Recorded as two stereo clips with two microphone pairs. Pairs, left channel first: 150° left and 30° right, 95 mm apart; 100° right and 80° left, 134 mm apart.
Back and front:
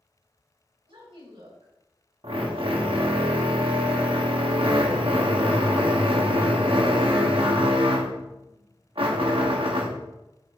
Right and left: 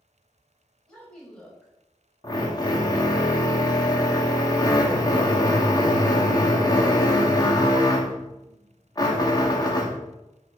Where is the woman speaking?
20° right, 5.5 m.